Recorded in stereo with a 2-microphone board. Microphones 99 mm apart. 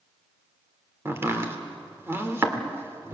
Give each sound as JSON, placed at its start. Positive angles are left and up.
{"t": 1.1, "sound": "chopping", "side_deg": -25, "distance_m": 1.8}